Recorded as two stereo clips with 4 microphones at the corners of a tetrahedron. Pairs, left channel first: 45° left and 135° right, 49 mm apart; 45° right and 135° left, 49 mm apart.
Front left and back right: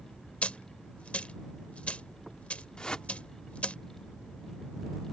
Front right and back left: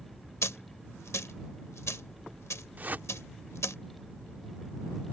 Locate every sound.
0.4 s a dropped coin: 20° right
2.8 s a whoosh: 110° left